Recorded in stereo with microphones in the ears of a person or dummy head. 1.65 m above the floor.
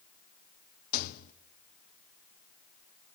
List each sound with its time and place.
0.9 s a rattle: 50° left (ahead or behind), 0.8 m